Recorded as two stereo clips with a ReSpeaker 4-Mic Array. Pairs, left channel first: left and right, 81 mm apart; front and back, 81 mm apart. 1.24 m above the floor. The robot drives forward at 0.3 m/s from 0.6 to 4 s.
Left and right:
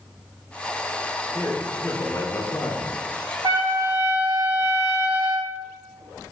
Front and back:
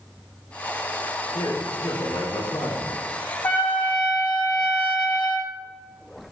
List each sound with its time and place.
1.3 s a man speaking: 25° left, 1.2 m; by 3.0 s 35° left, 0.8 m
3.4 s a trumpet: 65° right, 1.3 m; by 5.5 s 75° right, 1.2 m